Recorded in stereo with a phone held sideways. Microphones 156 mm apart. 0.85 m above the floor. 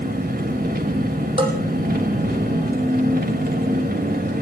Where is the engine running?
80° right, 2 m.